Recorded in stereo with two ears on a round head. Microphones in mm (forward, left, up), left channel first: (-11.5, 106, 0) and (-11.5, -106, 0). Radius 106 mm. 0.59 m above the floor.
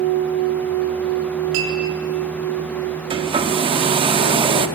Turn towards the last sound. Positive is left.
turn(degrees=-20)  # may be behind; listen again after turning